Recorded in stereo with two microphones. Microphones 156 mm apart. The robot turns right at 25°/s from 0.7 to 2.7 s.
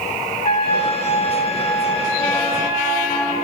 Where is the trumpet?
135° left, 5 m; by 3.3 s 175° right, 5 m.